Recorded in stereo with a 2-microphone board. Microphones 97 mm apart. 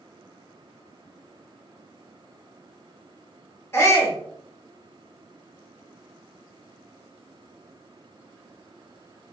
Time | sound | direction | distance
3.7 | a shout | 30° left (ahead or behind) | 1.2 m